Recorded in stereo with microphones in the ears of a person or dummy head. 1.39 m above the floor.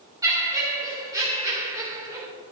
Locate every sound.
0.2 s laughter: 10° right (ahead or behind), 2 m